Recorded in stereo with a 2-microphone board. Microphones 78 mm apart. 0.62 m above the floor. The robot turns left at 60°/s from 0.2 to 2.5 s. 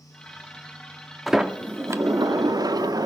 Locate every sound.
1.3 s a sliding door: straight ahead, 0.5 m; by 3.1 s 75° right, 0.5 m